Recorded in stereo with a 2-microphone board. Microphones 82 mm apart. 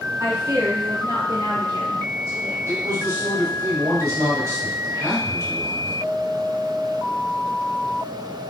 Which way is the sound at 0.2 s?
25° right (ahead or behind).